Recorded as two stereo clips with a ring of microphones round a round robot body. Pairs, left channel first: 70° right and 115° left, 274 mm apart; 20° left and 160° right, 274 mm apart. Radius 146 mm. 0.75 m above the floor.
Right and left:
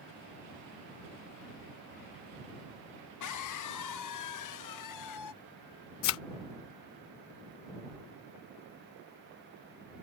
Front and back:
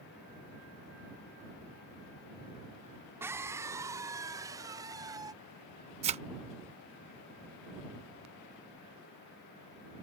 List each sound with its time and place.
3.2 s a scream: 75° right; by 5.3 s 80° right
6.0 s a thud: 95° right